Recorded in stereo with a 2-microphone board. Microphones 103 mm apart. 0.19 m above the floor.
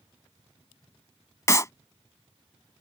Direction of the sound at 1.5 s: 30° left (ahead or behind).